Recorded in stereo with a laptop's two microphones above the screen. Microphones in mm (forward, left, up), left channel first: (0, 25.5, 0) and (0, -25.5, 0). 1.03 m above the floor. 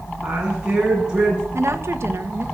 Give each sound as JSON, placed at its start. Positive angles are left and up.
{"t": 0.2, "sound": "a woman speaking", "side_deg": -20, "distance_m": 7.5}
{"t": 1.5, "sound": "a woman speaking", "side_deg": -55, "distance_m": 1.2}